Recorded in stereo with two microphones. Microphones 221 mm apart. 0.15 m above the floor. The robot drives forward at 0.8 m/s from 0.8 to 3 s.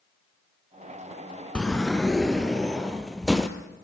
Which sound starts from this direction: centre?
A sliding door, at 1.6 s.